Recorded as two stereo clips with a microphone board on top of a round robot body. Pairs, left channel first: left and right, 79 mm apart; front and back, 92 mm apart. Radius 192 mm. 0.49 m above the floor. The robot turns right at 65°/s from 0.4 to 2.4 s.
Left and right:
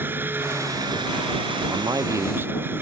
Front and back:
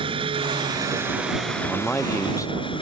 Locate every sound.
0.0 s an engine running: 155° right; by 2.8 s 25° right
1.7 s a man speaking: 85° right; by 2.8 s 35° right